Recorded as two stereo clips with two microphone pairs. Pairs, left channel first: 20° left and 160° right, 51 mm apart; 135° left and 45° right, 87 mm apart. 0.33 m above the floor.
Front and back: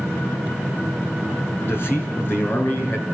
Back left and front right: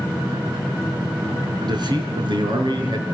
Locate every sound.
1.6 s a man speaking: 15° right, 5 m; by 3.0 s 25° right, 6 m